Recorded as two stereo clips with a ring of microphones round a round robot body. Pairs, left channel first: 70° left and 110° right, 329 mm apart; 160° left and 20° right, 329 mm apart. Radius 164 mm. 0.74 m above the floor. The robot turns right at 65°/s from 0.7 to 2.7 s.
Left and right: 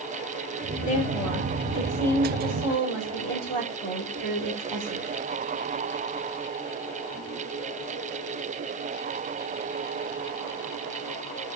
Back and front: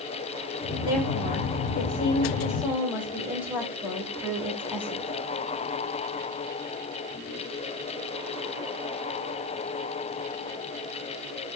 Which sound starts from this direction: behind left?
A woman speaking, at 0.8 s.